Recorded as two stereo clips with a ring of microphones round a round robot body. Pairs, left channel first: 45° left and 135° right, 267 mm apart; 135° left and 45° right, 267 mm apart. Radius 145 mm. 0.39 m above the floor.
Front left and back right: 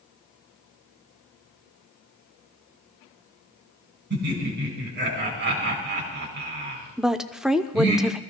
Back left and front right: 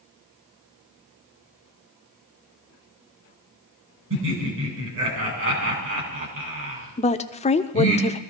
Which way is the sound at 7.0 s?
140° left.